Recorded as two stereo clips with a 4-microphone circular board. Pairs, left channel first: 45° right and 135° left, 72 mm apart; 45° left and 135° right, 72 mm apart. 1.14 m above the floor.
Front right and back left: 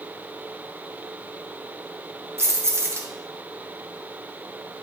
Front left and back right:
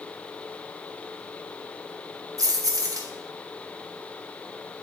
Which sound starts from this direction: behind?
Keys jangling, at 2.4 s.